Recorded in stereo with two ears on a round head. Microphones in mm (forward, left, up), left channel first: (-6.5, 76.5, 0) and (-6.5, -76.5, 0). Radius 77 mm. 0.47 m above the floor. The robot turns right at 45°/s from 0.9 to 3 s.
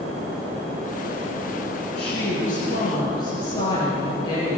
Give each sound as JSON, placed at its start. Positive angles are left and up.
{"t": 2.0, "sound": "a woman speaking", "azimuth_deg": 105, "distance_m": 8.0}